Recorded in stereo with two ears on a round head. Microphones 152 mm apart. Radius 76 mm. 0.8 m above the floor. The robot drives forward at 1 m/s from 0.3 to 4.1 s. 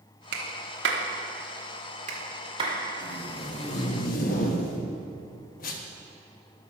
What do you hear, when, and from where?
0.3 s a clap: 65° right (ahead or behind), 1.4 m; by 2.8 s 35° right (ahead or behind), 2.5 m
3.0 s tape being pulled: 30° left (ahead or behind), 1.8 m; by 5.9 s 50° left (ahead or behind), 1.1 m